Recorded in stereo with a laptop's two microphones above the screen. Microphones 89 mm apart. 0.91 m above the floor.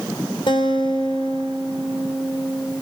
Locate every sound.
0.5 s a guitar: 80° left, 3.5 m